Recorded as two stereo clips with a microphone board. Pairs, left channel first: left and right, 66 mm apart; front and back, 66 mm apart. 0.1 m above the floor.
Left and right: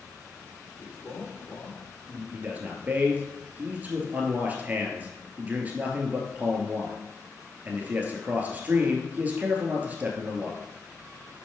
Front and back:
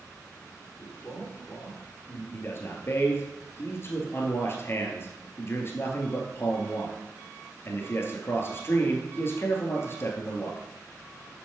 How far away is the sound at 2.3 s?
About 1.7 m.